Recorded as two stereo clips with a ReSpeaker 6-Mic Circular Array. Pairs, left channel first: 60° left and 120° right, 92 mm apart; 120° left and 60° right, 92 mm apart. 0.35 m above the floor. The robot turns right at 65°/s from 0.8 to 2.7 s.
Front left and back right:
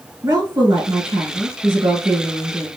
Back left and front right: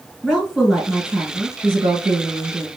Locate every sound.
0.2 s a woman speaking: 155° right, 1.7 m; by 2.7 s 35° right, 1.7 m